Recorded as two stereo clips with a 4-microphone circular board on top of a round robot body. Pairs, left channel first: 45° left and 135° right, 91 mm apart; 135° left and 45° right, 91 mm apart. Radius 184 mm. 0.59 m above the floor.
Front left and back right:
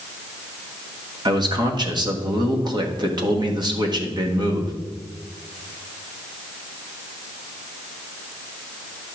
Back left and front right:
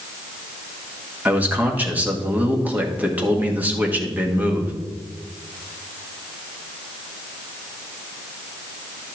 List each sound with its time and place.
1.2 s a man speaking: 115° right, 1.9 m